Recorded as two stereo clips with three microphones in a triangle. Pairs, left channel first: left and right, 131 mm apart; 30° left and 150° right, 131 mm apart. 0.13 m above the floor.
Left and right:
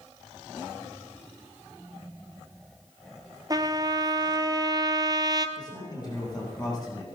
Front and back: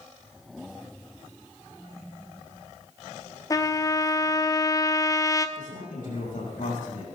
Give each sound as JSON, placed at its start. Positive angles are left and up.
{"t": 3.5, "sound": "a trumpet", "azimuth_deg": -35, "distance_m": 0.9}
{"t": 5.6, "sound": "a man speaking", "azimuth_deg": 30, "distance_m": 7.0}